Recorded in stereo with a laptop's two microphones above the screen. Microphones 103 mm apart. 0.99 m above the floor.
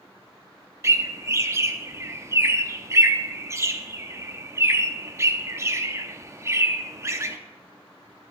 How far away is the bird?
About 0.6 m.